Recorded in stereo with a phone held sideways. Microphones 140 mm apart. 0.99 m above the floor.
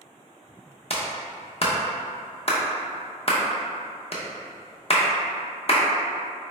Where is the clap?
50° left (ahead or behind), 0.6 m.